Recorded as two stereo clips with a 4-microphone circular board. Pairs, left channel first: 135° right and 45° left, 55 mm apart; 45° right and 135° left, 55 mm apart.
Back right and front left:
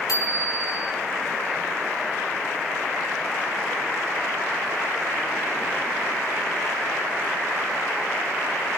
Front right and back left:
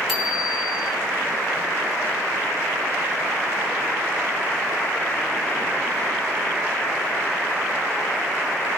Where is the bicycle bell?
140° right, 5 m.